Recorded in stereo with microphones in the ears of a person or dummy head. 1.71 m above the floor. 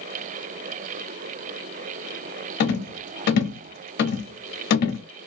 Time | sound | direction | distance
2.6 | a rattle | 55° left (ahead or behind) | 0.6 m